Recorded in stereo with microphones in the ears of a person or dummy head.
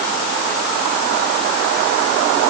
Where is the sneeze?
No sneeze in this recording.